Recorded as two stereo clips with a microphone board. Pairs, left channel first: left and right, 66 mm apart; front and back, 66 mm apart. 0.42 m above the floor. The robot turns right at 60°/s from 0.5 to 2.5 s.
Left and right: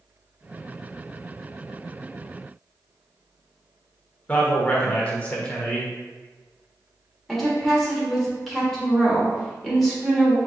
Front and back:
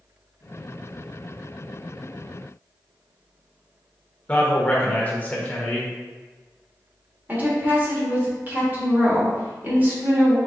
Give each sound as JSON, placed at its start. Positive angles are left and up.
{"t": 4.3, "sound": "a man speaking", "azimuth_deg": 40, "distance_m": 0.9}
{"t": 7.3, "sound": "a woman speaking", "azimuth_deg": 175, "distance_m": 1.3}